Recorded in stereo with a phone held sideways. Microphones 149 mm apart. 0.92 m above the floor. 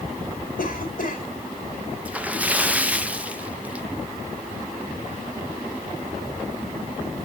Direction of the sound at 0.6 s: 65° left (ahead or behind).